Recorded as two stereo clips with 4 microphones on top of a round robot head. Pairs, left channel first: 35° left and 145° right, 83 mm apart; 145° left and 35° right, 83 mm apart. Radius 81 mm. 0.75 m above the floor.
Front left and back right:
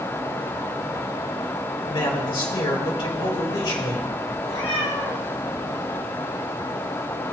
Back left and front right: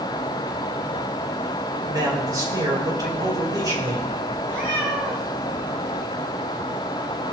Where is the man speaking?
10° left, 3.5 m.